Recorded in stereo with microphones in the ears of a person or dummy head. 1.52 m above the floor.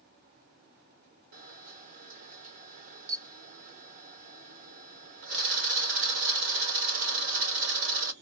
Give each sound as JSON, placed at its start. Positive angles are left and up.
{"t": 1.3, "sound": "a camera shutter", "side_deg": -45, "distance_m": 0.8}